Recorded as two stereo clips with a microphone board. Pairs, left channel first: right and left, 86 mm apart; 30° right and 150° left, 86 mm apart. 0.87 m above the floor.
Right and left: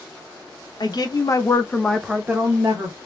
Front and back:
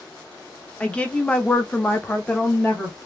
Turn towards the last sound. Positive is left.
turn(degrees=55)